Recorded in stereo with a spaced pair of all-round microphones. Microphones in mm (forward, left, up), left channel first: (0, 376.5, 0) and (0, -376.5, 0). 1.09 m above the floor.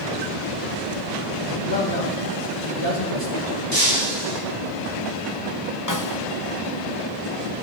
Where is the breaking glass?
85° right, 8.5 m.